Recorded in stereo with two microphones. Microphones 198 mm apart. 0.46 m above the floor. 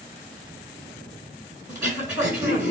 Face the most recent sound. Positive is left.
turn(degrees=-10)  # may be behind; listen again after turning